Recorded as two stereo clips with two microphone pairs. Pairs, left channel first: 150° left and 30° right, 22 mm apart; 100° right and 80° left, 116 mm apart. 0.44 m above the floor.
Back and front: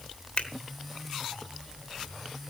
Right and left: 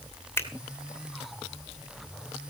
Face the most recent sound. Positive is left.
turn(degrees=-170)